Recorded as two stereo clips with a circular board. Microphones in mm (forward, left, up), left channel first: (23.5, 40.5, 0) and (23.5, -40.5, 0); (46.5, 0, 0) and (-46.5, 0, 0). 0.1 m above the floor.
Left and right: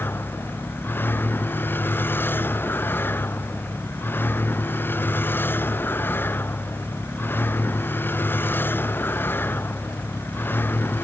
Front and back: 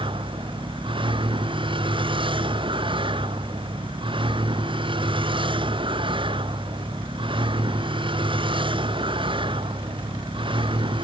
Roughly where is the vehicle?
Behind left.